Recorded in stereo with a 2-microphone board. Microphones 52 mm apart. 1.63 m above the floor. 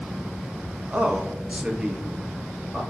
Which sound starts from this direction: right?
A man speaking, at 0.9 s.